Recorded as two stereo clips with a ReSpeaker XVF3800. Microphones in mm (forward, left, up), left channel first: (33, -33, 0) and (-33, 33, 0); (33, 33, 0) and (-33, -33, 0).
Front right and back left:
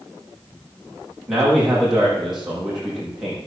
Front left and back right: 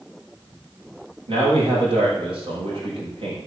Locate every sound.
1.3 s a man speaking: 135° right, 7 m